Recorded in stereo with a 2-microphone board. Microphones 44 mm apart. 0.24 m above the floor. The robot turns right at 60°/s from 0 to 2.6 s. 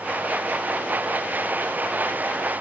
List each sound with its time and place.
Only background noise.